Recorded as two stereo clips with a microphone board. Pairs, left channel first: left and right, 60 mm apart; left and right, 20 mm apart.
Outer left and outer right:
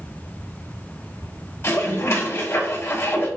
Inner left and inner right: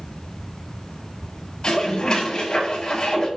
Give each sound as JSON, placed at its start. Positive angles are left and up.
{"t": 1.6, "sound": "dishes clattering", "side_deg": 45, "distance_m": 2.5}